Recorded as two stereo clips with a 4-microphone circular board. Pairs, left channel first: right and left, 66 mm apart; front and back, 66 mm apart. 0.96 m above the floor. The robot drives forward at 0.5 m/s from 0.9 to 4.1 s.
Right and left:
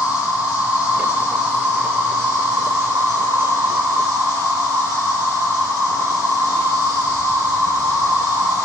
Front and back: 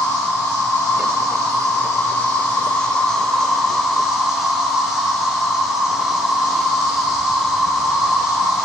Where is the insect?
35° left, 1.8 m; by 8.7 s 100° left, 1.2 m.